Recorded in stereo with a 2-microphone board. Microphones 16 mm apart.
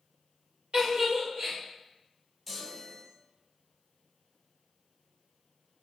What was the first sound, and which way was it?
A giggle, 60° right (ahead or behind).